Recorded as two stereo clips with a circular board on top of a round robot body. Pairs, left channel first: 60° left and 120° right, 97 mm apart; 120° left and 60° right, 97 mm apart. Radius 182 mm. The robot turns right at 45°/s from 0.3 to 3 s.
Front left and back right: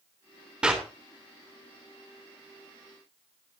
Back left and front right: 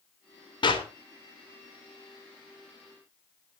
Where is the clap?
160° left, 3 m; by 0.9 s 170° left, 3 m.